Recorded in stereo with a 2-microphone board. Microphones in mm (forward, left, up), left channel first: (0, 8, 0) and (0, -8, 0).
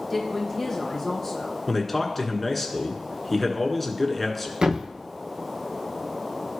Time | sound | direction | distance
0.1 | a woman speaking | 20° left (ahead or behind) | 4 m
1.7 | a man speaking | 10° left (ahead or behind) | 1.4 m
4.6 | a thud | 65° right (ahead or behind) | 1.1 m